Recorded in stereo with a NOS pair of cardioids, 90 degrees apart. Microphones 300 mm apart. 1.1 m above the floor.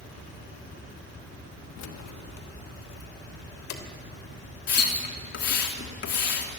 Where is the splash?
60° left, 3 m.